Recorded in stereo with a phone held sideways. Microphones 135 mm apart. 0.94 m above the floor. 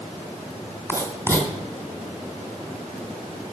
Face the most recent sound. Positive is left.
turn(degrees=20)  # may be behind; listen again after turning